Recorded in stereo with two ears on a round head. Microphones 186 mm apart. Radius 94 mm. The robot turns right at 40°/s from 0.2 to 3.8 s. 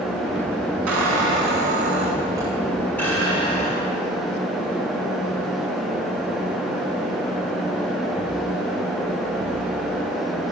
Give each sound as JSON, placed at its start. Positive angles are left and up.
{"t": 0.9, "sound": "a squeak", "azimuth_deg": -75, "distance_m": 7.5}